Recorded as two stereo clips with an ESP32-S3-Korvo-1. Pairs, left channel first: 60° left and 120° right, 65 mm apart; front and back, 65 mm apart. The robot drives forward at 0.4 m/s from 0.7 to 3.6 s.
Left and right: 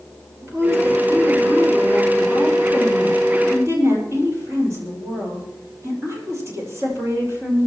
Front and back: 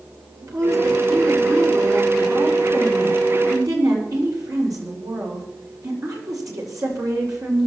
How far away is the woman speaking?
About 6.5 m.